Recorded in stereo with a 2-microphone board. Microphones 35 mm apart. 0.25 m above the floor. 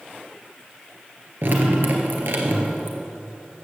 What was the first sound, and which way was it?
Dripping, 65° right (ahead or behind).